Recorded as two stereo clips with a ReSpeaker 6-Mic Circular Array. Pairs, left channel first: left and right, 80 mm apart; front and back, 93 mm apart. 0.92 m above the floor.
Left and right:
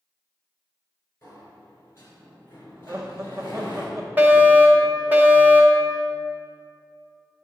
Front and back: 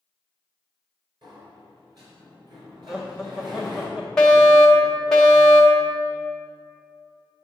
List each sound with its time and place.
1.2 s a sliding door: 145° left, 3.5 m
2.9 s laughter: 105° right, 0.7 m
4.2 s a fire alarm: 75° right, 1.4 m